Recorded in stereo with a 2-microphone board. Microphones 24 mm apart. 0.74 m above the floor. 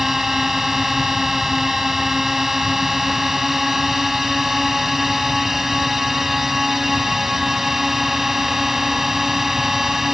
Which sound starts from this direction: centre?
A drone, at 0.0 s.